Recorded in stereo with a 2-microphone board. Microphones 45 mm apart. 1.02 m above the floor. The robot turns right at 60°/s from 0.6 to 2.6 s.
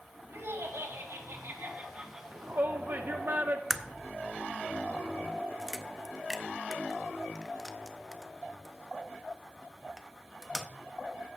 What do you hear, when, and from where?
0.3 s laughter: 110° right, 2.5 m; by 2.2 s 15° right, 2.5 m
2.3 s a shout: 50° right (ahead or behind), 0.6 m
3.7 s a crack: 5° right (ahead or behind), 0.7 m